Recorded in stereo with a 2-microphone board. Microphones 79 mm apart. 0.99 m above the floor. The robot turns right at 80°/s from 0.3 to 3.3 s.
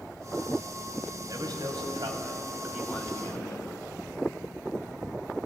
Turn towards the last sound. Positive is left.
turn(degrees=35)